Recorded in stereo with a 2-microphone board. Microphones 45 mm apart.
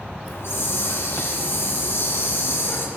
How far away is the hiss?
About 2 m.